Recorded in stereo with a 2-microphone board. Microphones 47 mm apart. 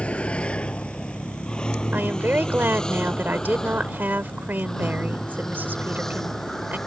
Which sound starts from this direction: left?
A vehicle, at 0.0 s.